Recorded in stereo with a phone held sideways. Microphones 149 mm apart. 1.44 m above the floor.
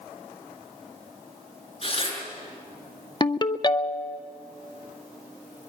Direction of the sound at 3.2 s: 30° left (ahead or behind).